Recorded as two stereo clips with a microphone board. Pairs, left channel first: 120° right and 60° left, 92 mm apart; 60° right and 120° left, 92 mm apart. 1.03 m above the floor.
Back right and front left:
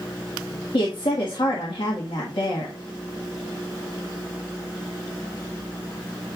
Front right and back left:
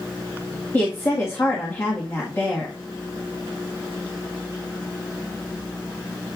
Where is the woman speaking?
125° right, 1.5 m.